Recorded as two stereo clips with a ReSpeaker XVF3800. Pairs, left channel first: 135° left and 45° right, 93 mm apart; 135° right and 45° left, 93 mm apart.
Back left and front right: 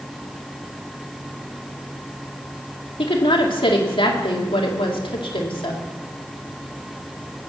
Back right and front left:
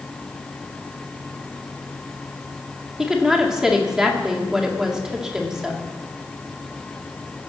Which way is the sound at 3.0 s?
130° left.